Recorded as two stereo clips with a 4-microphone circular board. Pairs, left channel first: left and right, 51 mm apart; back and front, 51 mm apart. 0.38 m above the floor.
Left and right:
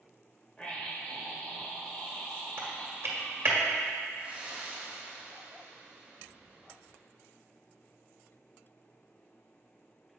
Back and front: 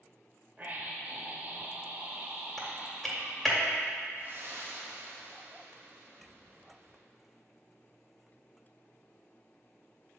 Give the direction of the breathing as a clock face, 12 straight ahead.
1 o'clock.